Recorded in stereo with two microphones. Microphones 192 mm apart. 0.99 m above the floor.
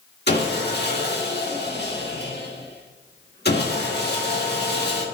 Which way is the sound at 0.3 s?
60° left (ahead or behind).